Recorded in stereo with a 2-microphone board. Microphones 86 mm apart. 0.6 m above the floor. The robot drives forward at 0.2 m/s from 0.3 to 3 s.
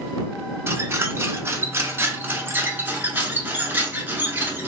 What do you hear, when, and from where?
0.7 s a squeak: 30° right (ahead or behind), 0.6 m; by 4.7 s 25° right (ahead or behind), 0.7 m